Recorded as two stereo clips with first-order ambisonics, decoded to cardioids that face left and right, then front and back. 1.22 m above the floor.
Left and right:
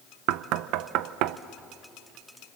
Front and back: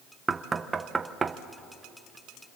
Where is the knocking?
105° right, 0.7 m.